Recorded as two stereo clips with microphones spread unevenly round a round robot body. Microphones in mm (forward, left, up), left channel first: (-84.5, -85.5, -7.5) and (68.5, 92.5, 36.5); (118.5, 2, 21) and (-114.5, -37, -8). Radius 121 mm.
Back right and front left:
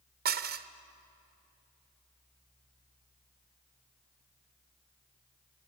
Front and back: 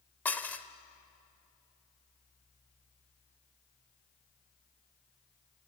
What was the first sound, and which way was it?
Dishes clattering, 100° left.